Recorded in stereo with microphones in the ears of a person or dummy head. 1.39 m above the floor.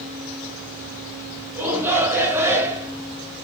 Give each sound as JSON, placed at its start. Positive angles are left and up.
{"t": 1.6, "sound": "a shout", "side_deg": -15, "distance_m": 1.1}